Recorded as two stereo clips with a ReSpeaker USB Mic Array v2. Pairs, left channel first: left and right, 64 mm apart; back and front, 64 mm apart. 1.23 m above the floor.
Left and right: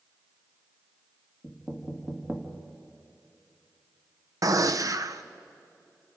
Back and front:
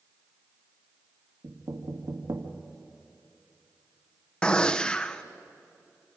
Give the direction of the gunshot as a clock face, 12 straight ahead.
4 o'clock.